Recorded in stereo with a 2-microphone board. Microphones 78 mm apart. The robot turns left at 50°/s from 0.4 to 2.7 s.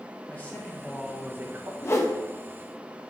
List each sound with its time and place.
0.3 s a man speaking: 20° left, 1.5 m; by 1.7 s 45° right, 1.5 m
1.8 s a whoosh: 35° left (ahead or behind), 0.9 m; by 2.1 s 45° left (ahead or behind), 0.9 m